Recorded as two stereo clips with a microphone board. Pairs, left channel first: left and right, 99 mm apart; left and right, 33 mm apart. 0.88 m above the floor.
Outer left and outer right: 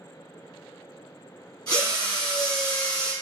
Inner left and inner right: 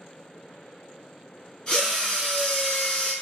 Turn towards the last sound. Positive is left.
turn(degrees=40)  # may be behind; listen again after turning